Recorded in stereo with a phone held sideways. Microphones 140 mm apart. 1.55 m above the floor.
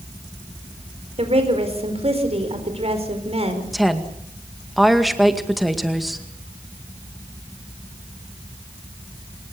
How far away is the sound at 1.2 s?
About 4.5 m.